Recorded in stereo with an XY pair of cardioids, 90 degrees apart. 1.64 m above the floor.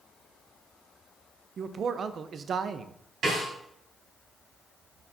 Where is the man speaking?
55° right, 0.7 m.